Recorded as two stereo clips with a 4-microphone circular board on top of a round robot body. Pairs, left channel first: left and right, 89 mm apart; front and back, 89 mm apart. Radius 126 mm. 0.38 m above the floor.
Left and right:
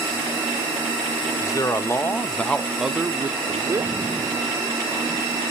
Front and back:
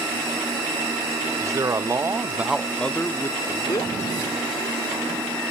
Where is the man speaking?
135° left, 1.4 m; by 3.9 s 40° right, 1.4 m.